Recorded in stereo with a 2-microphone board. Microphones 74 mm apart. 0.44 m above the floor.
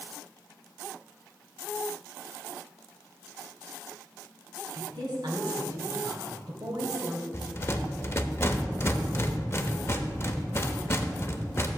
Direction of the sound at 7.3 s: 35° left (ahead or behind).